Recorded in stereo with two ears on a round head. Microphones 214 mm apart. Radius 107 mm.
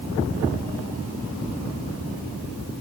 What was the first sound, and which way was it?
Only background noise.